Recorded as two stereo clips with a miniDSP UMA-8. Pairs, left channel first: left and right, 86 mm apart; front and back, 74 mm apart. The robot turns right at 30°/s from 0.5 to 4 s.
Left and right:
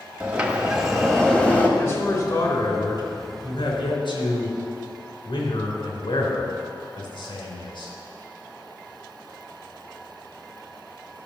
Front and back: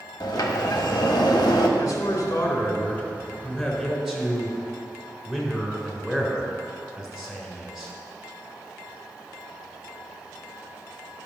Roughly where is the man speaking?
Ahead left.